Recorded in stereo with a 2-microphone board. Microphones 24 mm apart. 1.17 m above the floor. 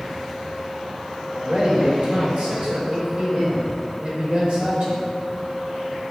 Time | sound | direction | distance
1.3 | a man speaking | 70° right (ahead or behind) | 5.5 m